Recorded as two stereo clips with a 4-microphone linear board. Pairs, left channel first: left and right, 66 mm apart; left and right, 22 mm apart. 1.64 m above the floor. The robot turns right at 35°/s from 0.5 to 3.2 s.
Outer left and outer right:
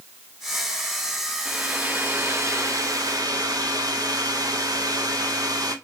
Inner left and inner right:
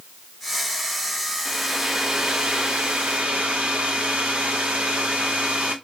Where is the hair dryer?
165° right, 1.0 m; by 5.8 s 105° right, 1.0 m.